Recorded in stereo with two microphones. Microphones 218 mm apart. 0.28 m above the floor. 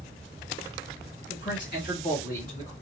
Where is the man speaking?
55° left (ahead or behind), 1.9 m; by 2.7 s 30° left (ahead or behind), 1.5 m.